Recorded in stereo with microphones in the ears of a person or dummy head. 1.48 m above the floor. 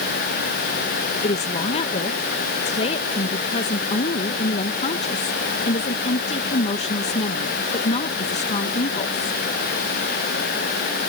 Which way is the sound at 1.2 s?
35° left (ahead or behind).